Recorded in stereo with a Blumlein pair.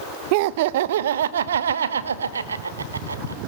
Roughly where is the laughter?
Ahead right.